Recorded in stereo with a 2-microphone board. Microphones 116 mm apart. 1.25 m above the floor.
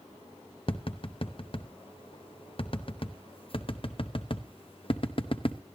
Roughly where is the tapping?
Left.